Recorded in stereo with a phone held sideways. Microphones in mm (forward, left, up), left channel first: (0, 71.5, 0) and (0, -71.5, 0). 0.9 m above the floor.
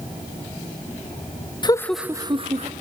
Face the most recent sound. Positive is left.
turn(degrees=-50)  # may be behind; listen again after turning